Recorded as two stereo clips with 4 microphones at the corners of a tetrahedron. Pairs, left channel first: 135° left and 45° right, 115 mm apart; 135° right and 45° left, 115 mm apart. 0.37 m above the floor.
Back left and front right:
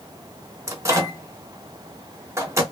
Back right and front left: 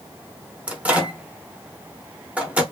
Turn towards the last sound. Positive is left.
turn(degrees=-25)